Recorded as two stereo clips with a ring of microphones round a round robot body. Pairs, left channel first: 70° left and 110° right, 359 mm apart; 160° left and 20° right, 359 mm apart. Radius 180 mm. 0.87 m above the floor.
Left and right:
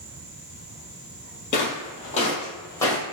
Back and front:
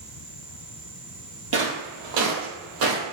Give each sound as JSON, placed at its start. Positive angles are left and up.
{"t": 1.5, "sound": "footsteps", "azimuth_deg": 20, "distance_m": 1.2}